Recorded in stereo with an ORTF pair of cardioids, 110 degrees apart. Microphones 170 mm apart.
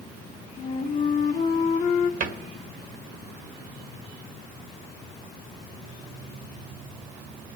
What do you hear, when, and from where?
0.6 s a flute: 45° left, 1.8 m
2.2 s a cupboard door: 55° right, 1.5 m